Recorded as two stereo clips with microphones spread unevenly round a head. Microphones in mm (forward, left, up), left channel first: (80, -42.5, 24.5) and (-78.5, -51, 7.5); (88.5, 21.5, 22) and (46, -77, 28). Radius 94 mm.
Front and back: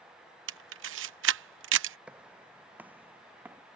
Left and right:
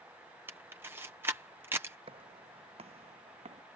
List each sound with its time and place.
0.5 s a camera shutter: 165° left
2.1 s footsteps: 90° right; by 3.6 s 95° right